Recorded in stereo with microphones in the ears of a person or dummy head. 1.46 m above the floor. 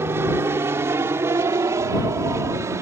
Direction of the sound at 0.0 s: 10° right (ahead or behind).